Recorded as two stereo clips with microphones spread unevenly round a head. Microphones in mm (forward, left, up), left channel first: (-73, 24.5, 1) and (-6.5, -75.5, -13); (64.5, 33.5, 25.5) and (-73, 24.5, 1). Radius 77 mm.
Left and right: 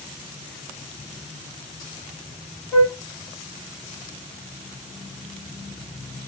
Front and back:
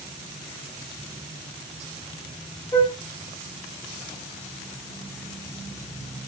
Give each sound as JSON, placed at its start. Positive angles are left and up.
{"t": 2.7, "sound": "a flute", "azimuth_deg": 55, "distance_m": 1.7}